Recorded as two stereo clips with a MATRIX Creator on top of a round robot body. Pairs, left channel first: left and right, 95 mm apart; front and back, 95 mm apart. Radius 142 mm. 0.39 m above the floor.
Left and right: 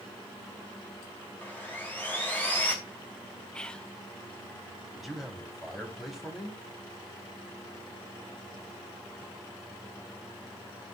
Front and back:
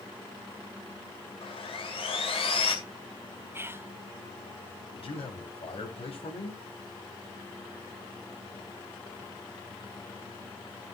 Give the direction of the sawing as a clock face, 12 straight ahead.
11 o'clock.